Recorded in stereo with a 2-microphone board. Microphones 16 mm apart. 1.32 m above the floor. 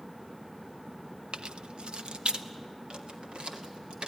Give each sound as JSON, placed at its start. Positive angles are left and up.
{"t": 1.3, "sound": "keys jangling", "side_deg": -60, "distance_m": 0.6}